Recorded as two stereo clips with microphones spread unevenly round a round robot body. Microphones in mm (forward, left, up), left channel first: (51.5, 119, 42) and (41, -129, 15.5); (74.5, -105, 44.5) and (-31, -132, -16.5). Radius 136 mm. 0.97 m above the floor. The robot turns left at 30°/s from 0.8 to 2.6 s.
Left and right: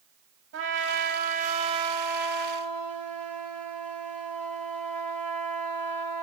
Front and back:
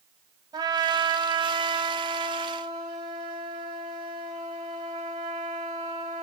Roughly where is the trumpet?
Behind right.